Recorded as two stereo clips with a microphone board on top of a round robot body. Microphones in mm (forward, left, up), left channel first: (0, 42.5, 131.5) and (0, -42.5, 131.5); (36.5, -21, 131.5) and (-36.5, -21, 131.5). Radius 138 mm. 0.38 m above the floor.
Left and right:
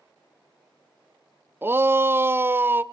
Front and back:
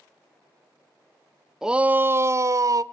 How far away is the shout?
About 0.8 m.